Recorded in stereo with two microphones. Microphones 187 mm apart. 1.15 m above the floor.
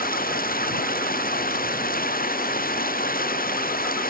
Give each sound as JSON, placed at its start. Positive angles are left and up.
{"t": 0.0, "sound": "running water", "side_deg": 55}